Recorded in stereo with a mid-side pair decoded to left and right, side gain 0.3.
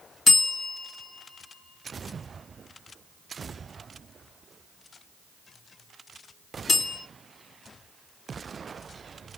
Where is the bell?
60° left, 2.5 m.